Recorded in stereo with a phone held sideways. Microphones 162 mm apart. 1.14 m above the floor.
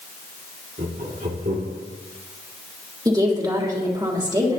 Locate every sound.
0.8 s laughter: 65° right (ahead or behind), 2.0 m; by 1.8 s 75° right (ahead or behind), 2.5 m
3.0 s a woman speaking: 25° right (ahead or behind), 3 m